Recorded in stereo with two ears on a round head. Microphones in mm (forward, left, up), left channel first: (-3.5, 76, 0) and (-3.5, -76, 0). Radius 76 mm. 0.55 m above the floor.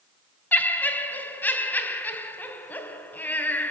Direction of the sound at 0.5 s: 10° left (ahead or behind).